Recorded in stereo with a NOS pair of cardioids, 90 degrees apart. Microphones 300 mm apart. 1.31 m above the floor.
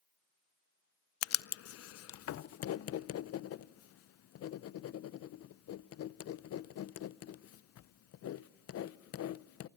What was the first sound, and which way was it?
Writing, 50° left.